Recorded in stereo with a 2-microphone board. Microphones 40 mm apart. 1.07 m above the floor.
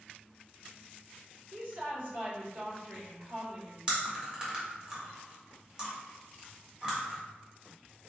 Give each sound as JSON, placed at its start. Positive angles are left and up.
{"t": 1.5, "sound": "a woman speaking", "side_deg": -65, "distance_m": 1.5}
{"t": 3.9, "sound": "chewing", "side_deg": -20, "distance_m": 1.0}